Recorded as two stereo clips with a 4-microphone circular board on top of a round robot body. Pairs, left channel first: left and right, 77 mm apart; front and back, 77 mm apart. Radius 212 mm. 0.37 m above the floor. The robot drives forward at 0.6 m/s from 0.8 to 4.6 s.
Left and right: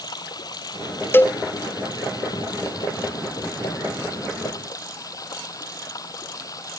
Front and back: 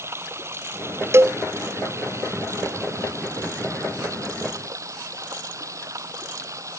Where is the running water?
125° left; by 6.8 s 135° left.